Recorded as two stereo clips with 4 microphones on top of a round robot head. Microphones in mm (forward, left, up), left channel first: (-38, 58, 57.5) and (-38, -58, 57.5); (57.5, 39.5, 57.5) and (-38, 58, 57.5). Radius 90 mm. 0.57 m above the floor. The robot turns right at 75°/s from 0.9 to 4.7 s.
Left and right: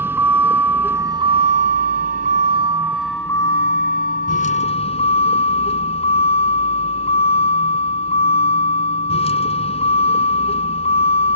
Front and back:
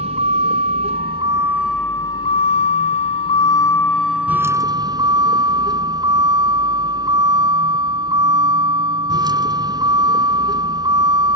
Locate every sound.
0.0 s a vehicle: 160° right; by 11.4 s 125° left